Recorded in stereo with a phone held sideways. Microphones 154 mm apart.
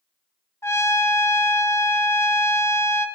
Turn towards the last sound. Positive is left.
turn(degrees=15)  # may be behind; listen again after turning